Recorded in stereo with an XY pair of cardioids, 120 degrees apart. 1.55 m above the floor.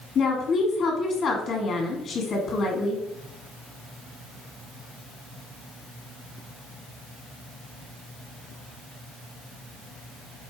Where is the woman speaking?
50° left, 1.3 m.